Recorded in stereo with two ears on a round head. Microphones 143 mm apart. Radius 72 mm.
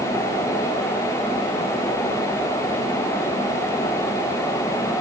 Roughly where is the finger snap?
I don't hear a finger snap.